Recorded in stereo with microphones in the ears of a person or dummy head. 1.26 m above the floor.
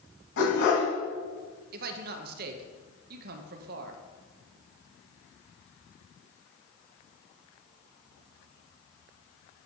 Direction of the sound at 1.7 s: 50° right (ahead or behind).